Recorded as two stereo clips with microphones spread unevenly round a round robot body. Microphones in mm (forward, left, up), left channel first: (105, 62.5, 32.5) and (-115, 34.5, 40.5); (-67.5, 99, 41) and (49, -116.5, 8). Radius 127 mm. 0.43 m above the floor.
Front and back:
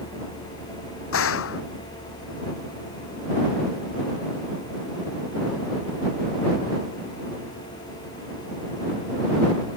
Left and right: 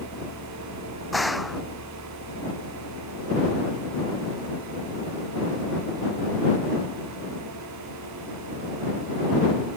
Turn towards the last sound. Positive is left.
turn(degrees=30)